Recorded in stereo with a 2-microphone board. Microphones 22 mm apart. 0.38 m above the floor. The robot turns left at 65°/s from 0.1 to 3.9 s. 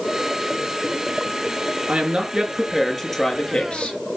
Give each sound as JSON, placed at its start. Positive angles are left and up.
{"t": 1.9, "sound": "a woman speaking", "azimuth_deg": -115, "distance_m": 5.0}